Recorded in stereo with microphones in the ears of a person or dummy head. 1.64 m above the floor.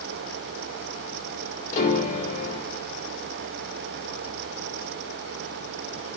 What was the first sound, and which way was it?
A piano, 50° left (ahead or behind).